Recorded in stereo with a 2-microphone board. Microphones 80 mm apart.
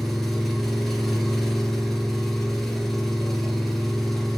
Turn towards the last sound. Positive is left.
turn(degrees=5)  # may be behind; listen again after turning